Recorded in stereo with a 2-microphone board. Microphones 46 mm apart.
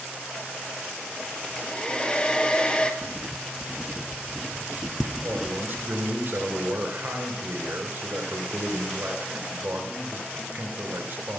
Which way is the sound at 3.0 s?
Centre (ahead or behind).